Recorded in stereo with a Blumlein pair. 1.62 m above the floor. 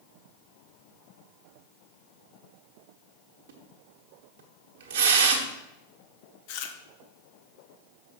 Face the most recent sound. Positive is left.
turn(degrees=45)